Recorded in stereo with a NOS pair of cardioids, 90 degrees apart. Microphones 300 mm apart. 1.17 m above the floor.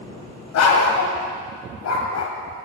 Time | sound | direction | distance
0.5 | a dog barking | 65° left | 2.5 m